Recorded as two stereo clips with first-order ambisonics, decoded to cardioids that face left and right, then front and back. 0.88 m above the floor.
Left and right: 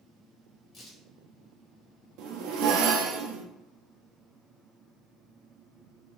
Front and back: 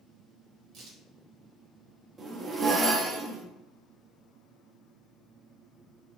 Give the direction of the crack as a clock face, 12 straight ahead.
7 o'clock.